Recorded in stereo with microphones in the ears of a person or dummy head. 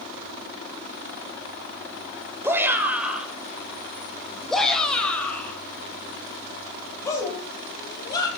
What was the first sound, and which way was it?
A shout, 15° right (ahead or behind).